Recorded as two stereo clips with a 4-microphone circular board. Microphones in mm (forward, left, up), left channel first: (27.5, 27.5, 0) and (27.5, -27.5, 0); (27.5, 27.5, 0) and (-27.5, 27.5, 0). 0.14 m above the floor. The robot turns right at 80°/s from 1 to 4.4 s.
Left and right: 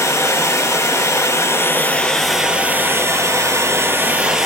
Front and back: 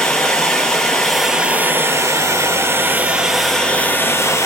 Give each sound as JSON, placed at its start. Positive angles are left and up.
{"t": 0.0, "sound": "running water", "azimuth_deg": 75, "distance_m": 0.9}